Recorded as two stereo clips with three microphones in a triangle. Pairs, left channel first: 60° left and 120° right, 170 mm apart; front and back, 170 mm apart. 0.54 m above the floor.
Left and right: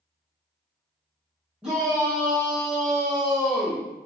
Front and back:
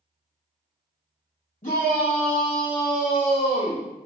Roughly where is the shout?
Ahead right.